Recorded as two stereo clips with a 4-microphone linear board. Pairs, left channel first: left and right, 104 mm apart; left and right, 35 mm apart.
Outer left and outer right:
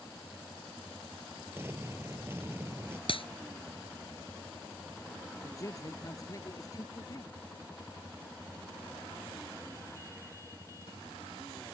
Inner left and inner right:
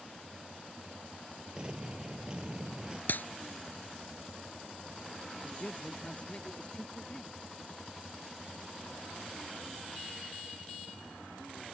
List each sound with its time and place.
1.6 s an explosion: 25° right (ahead or behind)
3.1 s a clap: 60° left (ahead or behind)
5.4 s a man speaking: 35° left (ahead or behind)